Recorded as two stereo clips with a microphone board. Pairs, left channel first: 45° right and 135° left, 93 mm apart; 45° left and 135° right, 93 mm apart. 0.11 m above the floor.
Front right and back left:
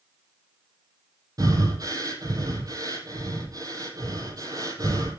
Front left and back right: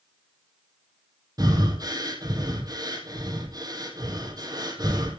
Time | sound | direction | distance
1.4 | breathing | 175° right | 3 m